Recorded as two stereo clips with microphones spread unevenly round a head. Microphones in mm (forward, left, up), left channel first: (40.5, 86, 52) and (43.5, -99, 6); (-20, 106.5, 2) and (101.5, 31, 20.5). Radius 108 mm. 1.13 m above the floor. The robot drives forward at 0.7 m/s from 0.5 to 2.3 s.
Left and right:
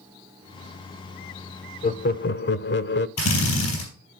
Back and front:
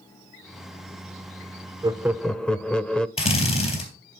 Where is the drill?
105° left, 3.5 m.